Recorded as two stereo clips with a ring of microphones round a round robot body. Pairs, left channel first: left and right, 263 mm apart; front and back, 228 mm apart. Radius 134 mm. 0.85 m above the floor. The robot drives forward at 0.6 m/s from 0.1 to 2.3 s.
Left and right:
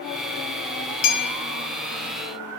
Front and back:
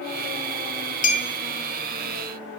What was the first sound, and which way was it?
A clink, 55° left.